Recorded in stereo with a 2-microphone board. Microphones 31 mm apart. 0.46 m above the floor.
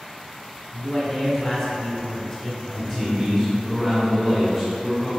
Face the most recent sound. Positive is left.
turn(degrees=0)  # may be behind; listen again after turning